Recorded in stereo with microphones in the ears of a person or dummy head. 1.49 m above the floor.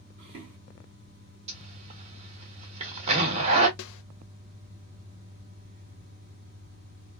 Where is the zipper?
35° right (ahead or behind), 1.0 m.